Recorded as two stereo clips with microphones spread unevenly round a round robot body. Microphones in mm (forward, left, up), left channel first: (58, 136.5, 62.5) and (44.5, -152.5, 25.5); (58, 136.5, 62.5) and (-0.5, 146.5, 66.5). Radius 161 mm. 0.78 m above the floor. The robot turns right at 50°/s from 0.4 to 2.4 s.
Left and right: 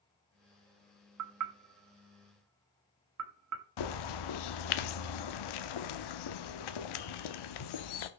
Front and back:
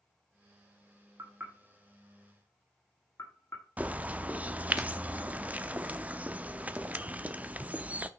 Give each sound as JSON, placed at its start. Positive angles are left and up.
{"t": 1.2, "sound": "knocking", "azimuth_deg": -130, "distance_m": 1.4}
{"t": 3.8, "sound": "a bird", "azimuth_deg": 100, "distance_m": 0.7}